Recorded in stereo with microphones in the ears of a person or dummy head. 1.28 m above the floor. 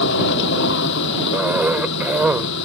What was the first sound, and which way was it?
A machine running, 60° left (ahead or behind).